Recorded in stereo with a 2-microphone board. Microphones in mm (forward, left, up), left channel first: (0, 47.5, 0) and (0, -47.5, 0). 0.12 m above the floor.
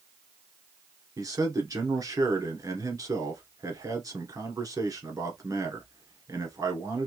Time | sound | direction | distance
1.2 | a man speaking | 40° right (ahead or behind) | 1.4 m